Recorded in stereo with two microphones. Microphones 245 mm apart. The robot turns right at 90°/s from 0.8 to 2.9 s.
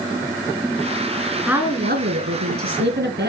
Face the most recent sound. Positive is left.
turn(degrees=-50)